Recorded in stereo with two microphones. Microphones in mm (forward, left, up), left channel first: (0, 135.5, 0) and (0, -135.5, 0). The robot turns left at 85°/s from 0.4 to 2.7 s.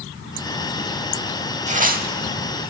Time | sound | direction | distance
1.7 | tearing paper | 45° right | 0.7 m